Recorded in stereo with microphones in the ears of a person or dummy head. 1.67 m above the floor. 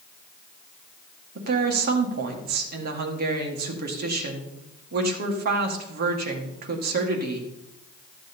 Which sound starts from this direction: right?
A woman speaking, at 1.4 s.